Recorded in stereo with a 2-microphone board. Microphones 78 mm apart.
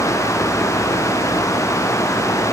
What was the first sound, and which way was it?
Only background noise.